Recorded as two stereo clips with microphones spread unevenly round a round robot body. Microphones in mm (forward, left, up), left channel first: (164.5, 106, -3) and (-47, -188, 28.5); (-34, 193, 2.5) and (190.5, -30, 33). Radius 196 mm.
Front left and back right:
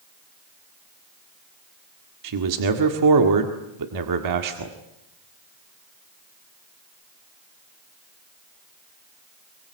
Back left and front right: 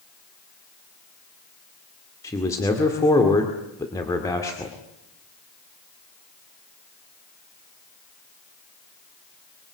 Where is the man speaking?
150° right, 1.8 m.